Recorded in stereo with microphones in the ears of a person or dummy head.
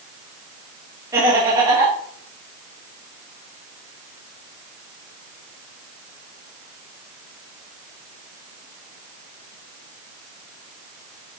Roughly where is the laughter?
Centre.